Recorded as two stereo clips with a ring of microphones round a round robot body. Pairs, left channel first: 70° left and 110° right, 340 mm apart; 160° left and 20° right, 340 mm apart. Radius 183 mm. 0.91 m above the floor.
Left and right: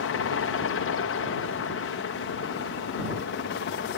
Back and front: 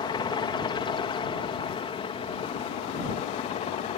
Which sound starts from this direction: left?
A helicopter, at 0.0 s.